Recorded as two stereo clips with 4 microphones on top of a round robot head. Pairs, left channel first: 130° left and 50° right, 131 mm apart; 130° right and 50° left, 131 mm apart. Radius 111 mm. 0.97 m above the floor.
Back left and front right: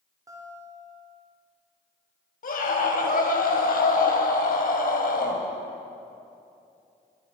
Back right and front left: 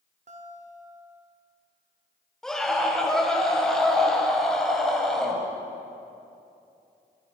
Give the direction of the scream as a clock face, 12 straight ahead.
7 o'clock.